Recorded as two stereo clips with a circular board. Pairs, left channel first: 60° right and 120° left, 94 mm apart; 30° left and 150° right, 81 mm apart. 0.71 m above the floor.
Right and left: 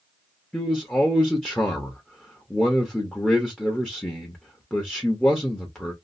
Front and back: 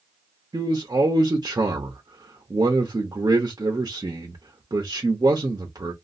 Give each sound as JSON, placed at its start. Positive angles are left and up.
{"t": 0.5, "sound": "a man speaking", "azimuth_deg": -135, "distance_m": 0.8}